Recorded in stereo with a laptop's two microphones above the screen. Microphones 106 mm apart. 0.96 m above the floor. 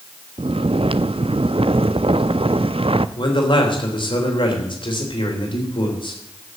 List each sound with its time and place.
0.4 s snoring: 65° right (ahead or behind), 0.5 m
3.2 s a man speaking: 55° left (ahead or behind), 3 m